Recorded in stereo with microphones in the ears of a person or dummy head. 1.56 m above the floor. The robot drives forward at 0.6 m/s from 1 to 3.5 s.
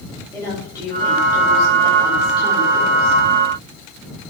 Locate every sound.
0.3 s a woman speaking: 20° left (ahead or behind), 5.5 m; by 3.2 s 30° left (ahead or behind), 4.5 m